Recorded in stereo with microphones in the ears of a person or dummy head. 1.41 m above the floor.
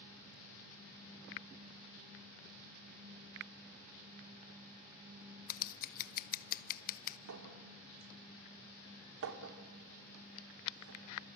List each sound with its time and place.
5.5 s scissors: 45° left (ahead or behind), 0.7 m
7.3 s a clink: 75° right (ahead or behind), 3 m